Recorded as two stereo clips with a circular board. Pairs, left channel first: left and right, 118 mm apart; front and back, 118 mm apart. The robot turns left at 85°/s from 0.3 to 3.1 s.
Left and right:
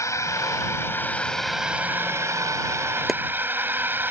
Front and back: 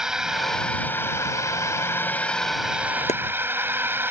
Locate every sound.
0.0 s a drone: 100° left; by 4.1 s 135° right
3.1 s chopping: straight ahead